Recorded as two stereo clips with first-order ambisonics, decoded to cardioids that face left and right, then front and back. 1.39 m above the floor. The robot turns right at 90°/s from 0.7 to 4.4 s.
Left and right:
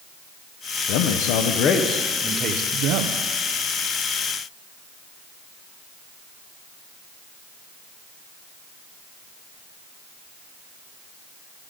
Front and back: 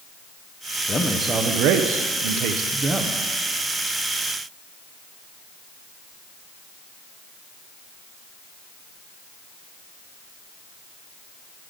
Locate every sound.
0.9 s a man speaking: 70° left, 0.6 m; by 3.2 s 85° right, 0.6 m